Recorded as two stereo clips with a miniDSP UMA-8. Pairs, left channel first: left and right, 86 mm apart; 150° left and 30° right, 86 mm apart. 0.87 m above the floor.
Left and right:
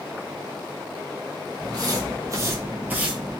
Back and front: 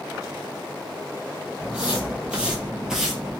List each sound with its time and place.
1.6 s footsteps: 100° right, 1.3 m; by 3.4 s 105° right, 0.8 m